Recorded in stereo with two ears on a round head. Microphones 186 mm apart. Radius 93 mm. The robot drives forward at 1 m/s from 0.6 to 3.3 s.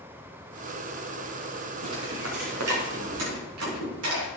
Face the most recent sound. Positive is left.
turn(degrees=-80)